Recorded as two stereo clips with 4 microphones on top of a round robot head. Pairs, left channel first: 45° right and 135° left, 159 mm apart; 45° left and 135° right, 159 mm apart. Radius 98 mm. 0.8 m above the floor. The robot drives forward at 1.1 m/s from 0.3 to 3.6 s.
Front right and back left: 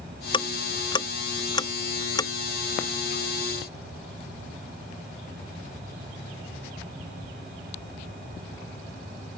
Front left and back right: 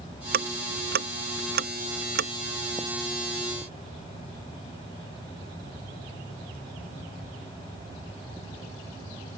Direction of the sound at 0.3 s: 105° right.